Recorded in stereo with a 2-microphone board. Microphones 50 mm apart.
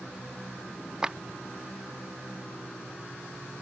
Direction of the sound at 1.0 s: 20° right (ahead or behind).